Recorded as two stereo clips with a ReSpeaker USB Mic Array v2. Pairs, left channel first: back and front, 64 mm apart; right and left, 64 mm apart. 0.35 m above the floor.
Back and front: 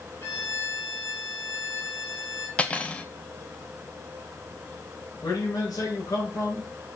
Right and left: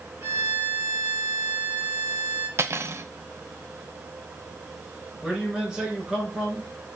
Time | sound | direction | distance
0.2 | a violin | 140° left | 4.5 m
2.6 | cutlery clinking | 115° left | 0.8 m
5.2 | a man speaking | 170° left | 4.5 m